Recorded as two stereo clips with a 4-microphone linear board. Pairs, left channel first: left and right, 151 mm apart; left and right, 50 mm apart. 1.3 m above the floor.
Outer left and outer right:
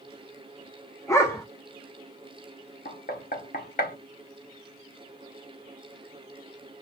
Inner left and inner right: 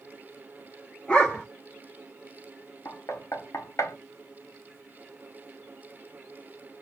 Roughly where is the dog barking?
Centre.